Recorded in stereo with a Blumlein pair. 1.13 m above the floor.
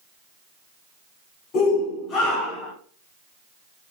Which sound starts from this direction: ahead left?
A shout, at 1.5 s.